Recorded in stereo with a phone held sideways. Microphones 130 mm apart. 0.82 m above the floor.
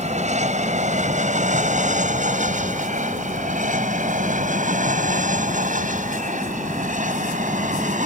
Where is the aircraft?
60° right (ahead or behind); by 8.1 s 75° right (ahead or behind).